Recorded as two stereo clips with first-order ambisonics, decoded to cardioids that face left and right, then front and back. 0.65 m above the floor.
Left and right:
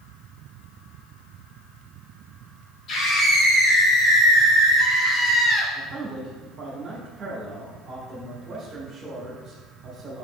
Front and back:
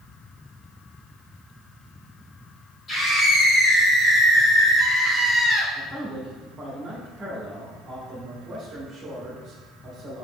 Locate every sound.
2.9 s a scream: 55° left, 1.2 m; by 5.7 s 35° left, 2.5 m
5.8 s a man speaking: 130° right, 0.9 m